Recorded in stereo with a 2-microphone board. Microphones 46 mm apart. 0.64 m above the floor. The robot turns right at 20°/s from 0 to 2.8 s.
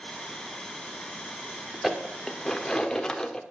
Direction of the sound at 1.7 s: 5° right (ahead or behind).